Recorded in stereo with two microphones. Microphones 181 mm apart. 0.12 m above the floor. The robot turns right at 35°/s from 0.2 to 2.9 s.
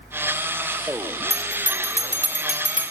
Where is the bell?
135° left, 1.6 m; by 2.9 s 170° right, 1.6 m.